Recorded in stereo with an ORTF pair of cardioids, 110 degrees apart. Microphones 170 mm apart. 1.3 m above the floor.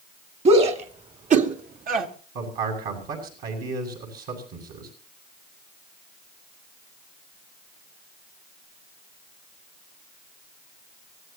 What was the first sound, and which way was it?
A shout, 35° right.